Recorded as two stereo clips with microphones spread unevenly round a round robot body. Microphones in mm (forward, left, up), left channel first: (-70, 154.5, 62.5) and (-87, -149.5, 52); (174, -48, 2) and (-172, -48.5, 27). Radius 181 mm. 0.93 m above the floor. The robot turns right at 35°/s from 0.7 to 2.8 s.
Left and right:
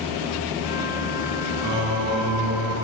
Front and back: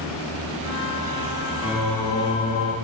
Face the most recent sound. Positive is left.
turn(degrees=-60)